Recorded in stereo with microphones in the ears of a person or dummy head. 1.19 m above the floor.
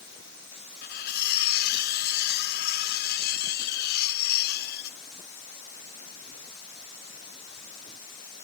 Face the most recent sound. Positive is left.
turn(degrees=70)  # may be behind; listen again after turning